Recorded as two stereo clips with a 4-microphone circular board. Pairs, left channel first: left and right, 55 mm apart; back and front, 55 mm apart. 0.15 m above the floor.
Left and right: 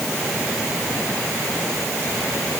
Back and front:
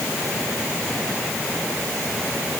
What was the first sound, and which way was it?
Only background noise.